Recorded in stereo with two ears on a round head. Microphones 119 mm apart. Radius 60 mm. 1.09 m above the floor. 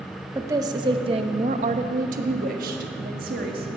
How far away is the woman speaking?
About 0.9 m.